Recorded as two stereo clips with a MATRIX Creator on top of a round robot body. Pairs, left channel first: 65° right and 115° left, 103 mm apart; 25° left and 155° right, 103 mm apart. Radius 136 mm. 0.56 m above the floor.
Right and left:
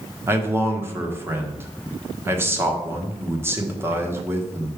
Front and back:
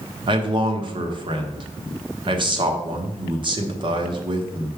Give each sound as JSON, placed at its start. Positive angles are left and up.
{"t": 0.3, "sound": "a man speaking", "azimuth_deg": 175, "distance_m": 1.4}